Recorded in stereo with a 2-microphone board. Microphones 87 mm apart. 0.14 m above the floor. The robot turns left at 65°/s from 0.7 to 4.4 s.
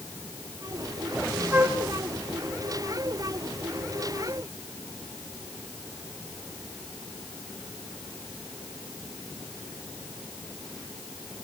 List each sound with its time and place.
1.5 s a flute: 20° right (ahead or behind), 1.8 m; by 1.8 s 30° right (ahead or behind), 1.8 m